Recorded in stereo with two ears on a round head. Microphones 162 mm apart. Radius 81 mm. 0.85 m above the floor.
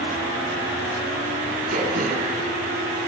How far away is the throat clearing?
About 5.5 m.